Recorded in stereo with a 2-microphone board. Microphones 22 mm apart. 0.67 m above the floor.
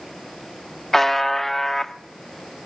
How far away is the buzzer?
About 1.0 m.